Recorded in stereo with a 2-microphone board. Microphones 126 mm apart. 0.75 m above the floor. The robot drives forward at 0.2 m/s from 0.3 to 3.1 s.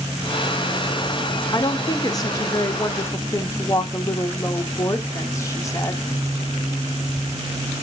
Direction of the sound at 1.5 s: 30° left (ahead or behind).